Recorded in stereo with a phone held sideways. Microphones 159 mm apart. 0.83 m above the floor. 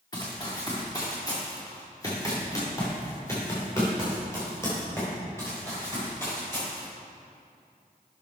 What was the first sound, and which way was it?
Running footsteps, 25° left (ahead or behind).